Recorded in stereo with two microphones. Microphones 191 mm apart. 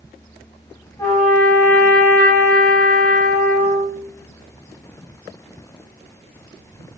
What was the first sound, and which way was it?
A trumpet, 15° left (ahead or behind).